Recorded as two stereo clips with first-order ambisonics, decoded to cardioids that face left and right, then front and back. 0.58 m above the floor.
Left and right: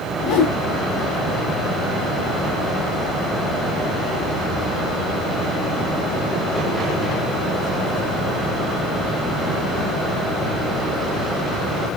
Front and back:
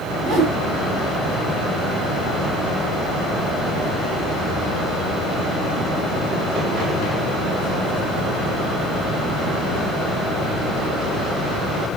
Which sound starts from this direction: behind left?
A whoosh, at 0.2 s.